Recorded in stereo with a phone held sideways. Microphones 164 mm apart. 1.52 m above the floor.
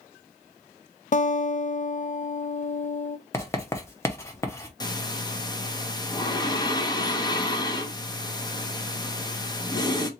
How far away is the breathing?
About 0.8 m.